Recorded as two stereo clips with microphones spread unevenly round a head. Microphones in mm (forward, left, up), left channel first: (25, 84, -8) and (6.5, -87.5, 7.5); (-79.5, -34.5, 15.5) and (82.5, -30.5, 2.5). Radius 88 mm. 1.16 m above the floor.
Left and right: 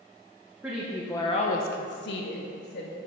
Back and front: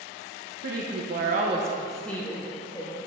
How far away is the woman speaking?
About 1.3 m.